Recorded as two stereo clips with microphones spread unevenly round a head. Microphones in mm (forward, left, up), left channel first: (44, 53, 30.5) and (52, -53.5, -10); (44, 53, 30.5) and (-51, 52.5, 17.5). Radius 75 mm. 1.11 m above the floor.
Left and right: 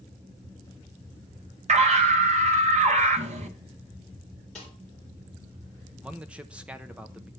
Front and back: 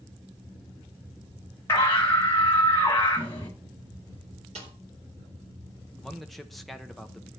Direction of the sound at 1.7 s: 75° right.